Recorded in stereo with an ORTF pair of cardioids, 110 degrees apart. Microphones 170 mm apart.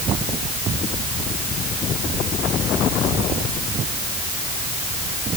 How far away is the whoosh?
I don't hear a whoosh.